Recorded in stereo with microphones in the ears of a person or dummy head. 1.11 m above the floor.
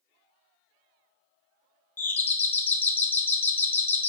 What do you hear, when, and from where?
2.0 s a doorbell: 10° left (ahead or behind), 0.5 m